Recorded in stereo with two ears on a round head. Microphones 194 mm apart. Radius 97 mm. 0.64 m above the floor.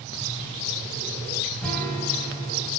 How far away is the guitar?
About 2.5 m.